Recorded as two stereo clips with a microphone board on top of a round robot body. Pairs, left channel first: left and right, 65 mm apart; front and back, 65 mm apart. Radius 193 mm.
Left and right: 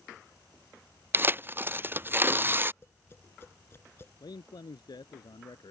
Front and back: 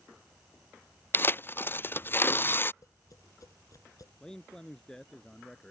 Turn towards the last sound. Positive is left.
turn(degrees=80)